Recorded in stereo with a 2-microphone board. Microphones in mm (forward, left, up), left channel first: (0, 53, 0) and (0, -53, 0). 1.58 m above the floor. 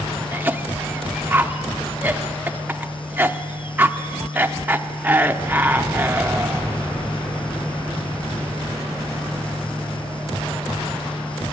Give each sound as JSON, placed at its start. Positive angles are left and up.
{"t": 0.3, "sound": "a cough", "side_deg": -15, "distance_m": 0.7}